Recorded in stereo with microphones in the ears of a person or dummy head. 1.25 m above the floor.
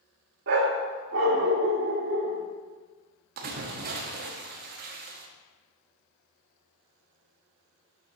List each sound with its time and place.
0.5 s a dog barking: 50° right (ahead or behind), 1.2 m; by 2.4 s 60° right (ahead or behind), 1.6 m
3.4 s a splash: 50° right (ahead or behind), 1.1 m